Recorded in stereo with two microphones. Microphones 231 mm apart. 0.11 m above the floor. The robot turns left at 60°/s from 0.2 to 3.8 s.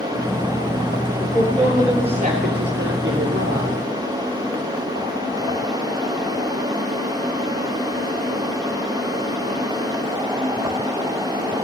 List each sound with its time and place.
1.2 s a woman speaking: 20° left, 2.5 m; by 3.8 s 135° right, 2.5 m